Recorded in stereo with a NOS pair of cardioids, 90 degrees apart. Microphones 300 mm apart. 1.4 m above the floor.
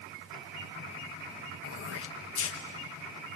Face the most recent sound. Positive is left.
turn(degrees=50)